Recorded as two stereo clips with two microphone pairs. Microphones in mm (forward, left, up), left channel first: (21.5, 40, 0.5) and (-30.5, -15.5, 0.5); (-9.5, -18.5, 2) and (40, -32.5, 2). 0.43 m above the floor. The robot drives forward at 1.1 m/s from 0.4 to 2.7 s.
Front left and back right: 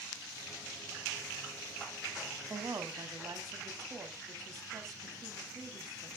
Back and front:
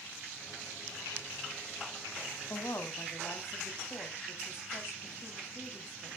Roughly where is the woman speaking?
Behind.